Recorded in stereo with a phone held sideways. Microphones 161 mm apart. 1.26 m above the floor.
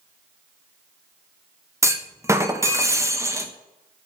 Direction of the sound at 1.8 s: 20° right (ahead or behind).